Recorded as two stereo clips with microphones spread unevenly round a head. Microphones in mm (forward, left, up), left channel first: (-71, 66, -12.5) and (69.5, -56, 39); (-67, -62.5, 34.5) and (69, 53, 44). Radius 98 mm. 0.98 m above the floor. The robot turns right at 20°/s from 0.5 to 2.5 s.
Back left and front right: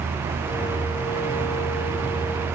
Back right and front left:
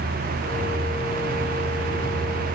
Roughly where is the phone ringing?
No phone ringing in this recording.